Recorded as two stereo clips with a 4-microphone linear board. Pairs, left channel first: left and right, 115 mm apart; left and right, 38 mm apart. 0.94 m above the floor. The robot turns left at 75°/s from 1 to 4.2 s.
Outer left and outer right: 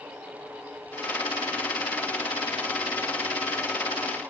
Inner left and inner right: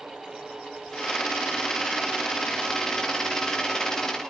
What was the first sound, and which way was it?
Only background noise.